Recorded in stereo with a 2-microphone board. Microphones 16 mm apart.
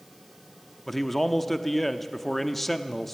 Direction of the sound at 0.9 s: 10° left (ahead or behind).